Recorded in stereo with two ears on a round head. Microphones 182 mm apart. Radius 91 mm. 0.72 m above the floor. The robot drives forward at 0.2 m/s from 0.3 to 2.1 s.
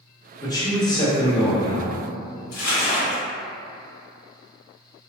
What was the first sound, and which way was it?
A man speaking, 20° left (ahead or behind).